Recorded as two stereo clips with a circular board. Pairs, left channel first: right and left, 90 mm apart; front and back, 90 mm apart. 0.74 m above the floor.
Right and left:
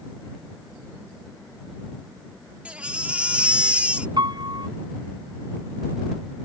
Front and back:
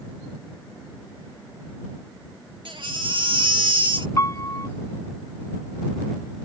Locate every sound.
2.6 s a baby crying: 165° left
4.2 s a piano: 55° left